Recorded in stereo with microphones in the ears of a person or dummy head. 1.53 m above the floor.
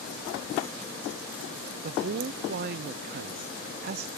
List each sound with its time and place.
1.8 s a man speaking: 55° right (ahead or behind), 0.6 m